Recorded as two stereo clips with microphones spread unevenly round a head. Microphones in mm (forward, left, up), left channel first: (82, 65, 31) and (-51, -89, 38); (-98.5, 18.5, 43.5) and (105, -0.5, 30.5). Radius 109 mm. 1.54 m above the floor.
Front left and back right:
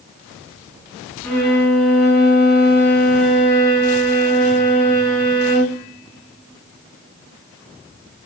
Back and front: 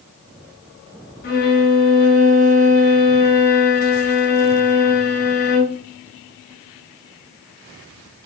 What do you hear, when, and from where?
1.2 s a violin: 130° left, 0.8 m